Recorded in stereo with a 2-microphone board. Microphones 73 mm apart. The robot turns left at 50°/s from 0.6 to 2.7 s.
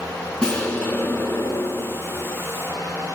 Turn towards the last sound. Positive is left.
turn(degrees=65)